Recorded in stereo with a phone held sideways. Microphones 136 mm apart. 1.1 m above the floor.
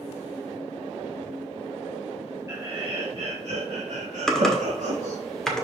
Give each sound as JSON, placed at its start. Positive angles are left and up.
{"t": 2.5, "sound": "laughter", "side_deg": -25, "distance_m": 1.3}
{"t": 4.3, "sound": "typing on a keyboard", "side_deg": 5, "distance_m": 1.5}